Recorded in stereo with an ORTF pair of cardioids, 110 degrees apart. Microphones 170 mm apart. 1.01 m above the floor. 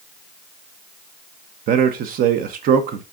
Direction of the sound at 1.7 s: 60° right.